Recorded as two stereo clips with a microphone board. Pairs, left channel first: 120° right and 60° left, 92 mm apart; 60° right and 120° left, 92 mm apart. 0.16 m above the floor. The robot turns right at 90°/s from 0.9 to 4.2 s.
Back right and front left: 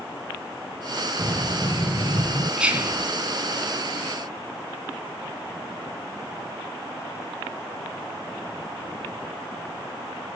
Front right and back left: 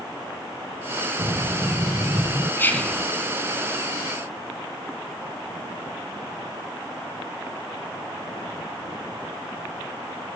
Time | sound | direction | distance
1.2 | breathing | 140° left | 7.5 m
2.6 | whispering | 15° right | 1.5 m